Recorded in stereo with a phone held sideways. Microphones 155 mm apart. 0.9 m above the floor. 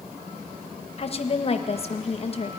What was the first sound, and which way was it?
A woman speaking, 40° left (ahead or behind).